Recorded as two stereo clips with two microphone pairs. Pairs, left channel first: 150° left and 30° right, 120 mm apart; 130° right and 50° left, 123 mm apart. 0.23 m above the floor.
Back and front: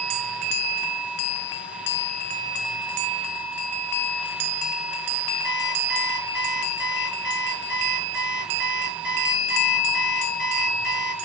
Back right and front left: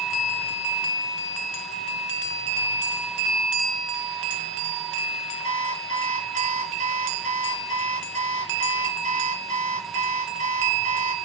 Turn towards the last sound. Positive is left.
turn(degrees=50)